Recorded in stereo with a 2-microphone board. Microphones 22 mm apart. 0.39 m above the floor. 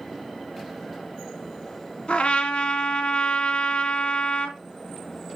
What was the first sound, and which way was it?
A trumpet, 65° left (ahead or behind).